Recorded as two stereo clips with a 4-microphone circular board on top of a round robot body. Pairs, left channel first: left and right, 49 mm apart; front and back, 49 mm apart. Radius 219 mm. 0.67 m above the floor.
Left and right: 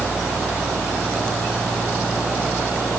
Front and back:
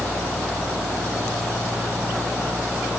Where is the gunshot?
I don't hear a gunshot.